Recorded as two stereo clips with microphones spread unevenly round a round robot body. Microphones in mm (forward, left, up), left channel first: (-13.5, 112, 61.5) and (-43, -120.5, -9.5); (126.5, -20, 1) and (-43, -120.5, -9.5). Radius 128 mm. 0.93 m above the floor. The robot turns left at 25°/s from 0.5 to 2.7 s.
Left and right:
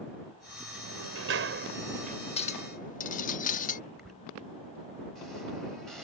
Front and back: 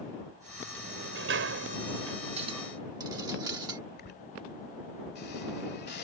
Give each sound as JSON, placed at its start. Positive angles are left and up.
{"t": 0.8, "sound": "a sliding door", "azimuth_deg": -120}
{"t": 2.4, "sound": "a clink", "azimuth_deg": 145}
{"t": 4.0, "sound": "a squeak", "azimuth_deg": 0}